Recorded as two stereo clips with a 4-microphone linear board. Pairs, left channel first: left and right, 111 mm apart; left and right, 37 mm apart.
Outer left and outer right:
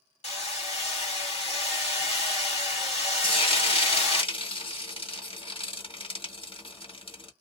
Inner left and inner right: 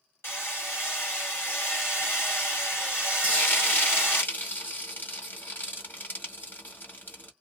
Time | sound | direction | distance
0.2 | hammering | 80° left | 1.7 m
3.2 | frying | 60° left (ahead or behind) | 1.5 m